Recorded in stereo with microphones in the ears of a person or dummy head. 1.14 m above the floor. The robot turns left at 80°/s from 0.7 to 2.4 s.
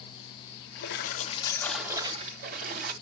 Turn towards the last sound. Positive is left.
turn(degrees=-50)